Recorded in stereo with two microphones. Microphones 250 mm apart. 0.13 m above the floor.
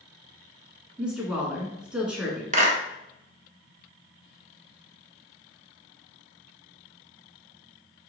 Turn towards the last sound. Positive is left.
turn(degrees=-30)  # may be behind; listen again after turning